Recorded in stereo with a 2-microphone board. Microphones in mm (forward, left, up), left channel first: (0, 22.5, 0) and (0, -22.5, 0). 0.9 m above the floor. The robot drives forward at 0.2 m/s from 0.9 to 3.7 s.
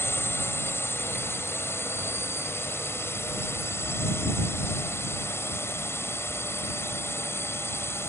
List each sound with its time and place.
0.0 s a drone: 70° left (ahead or behind); by 8.1 s 75° left (ahead or behind)